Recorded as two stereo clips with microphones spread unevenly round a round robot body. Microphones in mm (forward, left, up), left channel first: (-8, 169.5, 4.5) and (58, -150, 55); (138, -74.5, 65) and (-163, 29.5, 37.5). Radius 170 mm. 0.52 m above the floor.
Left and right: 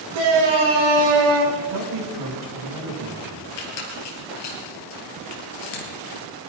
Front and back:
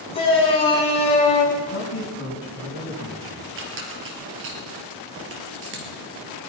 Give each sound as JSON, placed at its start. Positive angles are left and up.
{"t": 0.1, "sound": "a shout", "azimuth_deg": -90, "distance_m": 7.0}
{"t": 1.6, "sound": "a man speaking", "azimuth_deg": -70, "distance_m": 5.5}
{"t": 3.6, "sound": "a squeak", "azimuth_deg": 105, "distance_m": 3.0}